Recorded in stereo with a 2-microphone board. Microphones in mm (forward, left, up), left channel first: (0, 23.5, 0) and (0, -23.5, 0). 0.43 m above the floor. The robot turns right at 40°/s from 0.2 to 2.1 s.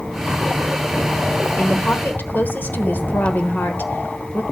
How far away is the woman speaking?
About 1.2 m.